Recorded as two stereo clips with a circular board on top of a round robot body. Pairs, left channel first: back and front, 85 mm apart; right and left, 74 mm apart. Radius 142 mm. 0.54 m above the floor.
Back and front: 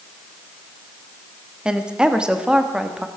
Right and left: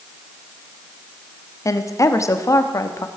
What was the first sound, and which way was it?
A woman speaking, 75° right.